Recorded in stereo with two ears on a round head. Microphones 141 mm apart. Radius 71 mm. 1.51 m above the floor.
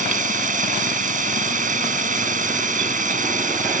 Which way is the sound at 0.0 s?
55° right (ahead or behind).